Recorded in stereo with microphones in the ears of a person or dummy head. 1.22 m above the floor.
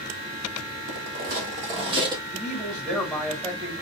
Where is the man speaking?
5° right (ahead or behind), 1.9 m.